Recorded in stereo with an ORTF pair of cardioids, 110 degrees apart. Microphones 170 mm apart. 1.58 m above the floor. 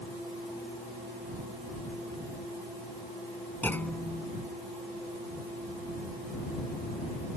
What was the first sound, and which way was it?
A clunk, 10° left.